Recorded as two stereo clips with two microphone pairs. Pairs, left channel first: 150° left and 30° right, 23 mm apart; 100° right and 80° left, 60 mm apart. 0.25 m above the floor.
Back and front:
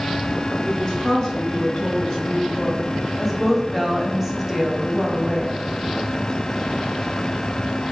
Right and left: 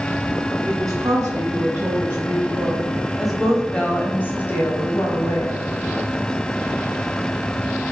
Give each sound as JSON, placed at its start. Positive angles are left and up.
{"t": 0.7, "sound": "a woman speaking", "azimuth_deg": 85, "distance_m": 1.7}